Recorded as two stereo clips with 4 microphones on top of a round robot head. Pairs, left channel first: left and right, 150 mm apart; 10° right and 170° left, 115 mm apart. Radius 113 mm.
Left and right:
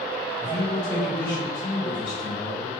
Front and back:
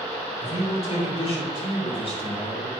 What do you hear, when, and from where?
0.4 s a man speaking: 20° left, 5 m; by 2.7 s 35° left, 4 m